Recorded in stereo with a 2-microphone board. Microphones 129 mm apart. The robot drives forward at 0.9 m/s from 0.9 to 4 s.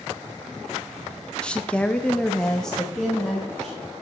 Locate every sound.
1.4 s a woman speaking: 10° left (ahead or behind), 0.7 m; by 3.9 s 5° left (ahead or behind), 2.0 m